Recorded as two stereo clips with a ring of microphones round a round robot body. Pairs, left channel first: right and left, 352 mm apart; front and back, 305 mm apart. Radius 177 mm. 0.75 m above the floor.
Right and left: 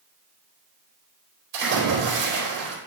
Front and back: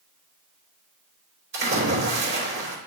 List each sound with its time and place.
1.5 s a splash: 130° left, 3.5 m